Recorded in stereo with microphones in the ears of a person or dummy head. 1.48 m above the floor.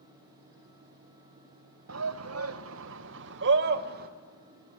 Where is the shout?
75° right (ahead or behind), 1.6 m; by 4.1 s 55° right (ahead or behind), 2 m.